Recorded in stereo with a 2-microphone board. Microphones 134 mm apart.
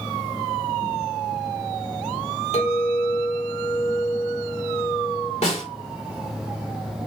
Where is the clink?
50° left (ahead or behind), 1.6 m.